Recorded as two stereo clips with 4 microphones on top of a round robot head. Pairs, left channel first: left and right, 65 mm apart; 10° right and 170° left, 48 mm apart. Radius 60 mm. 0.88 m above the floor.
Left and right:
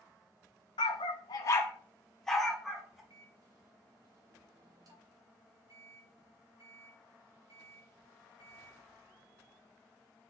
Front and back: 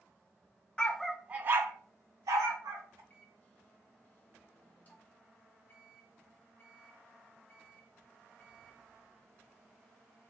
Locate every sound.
0.8 s a dog barking: 60° left, 0.6 m; by 3.0 s 175° right, 1.5 m
3.1 s a microwave: 65° right, 1.3 m